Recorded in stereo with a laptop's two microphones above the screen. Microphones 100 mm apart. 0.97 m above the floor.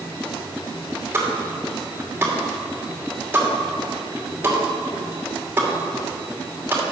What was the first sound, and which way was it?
A pop, 20° right (ahead or behind).